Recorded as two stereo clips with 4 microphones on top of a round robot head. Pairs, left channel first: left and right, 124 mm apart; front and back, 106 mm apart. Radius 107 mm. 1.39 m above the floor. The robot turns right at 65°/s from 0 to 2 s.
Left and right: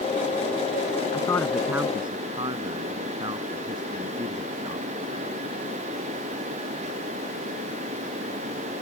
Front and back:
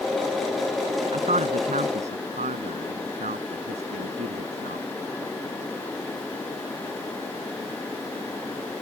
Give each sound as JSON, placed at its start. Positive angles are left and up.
{"t": 1.1, "sound": "a man speaking", "azimuth_deg": 150}